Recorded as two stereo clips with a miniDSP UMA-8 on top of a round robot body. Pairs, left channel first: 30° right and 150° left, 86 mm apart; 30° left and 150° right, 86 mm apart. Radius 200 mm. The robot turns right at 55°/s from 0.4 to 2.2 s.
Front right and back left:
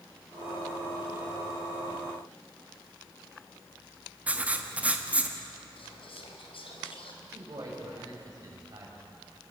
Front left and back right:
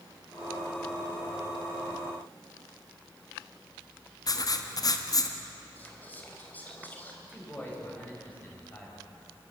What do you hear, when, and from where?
4.3 s writing: 75° left, 1.7 m
5.8 s whispering: 40° right, 4.5 m
7.2 s a man speaking: 100° left, 6.5 m